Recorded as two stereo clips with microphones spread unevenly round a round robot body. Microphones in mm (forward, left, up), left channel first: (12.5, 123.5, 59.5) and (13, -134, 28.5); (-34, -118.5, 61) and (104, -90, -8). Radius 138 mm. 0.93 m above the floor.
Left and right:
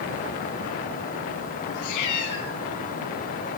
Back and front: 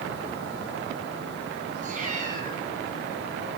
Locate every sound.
1.7 s a cat meowing: 70° left, 6 m